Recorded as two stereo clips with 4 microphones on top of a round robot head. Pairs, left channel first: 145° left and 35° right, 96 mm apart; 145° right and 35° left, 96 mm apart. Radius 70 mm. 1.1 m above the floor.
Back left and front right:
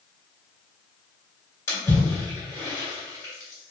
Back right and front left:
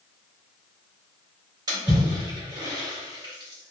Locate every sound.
1.7 s a splash: 85° left, 1.6 m